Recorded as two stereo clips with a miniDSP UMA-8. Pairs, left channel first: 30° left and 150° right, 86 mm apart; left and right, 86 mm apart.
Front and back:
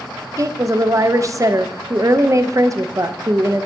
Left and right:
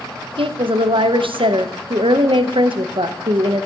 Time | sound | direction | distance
0.4 | a woman speaking | 100° right | 0.7 m